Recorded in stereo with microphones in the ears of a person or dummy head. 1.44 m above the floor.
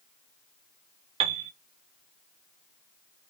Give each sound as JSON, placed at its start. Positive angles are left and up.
{"t": 1.2, "sound": "a piano", "side_deg": -35, "distance_m": 0.6}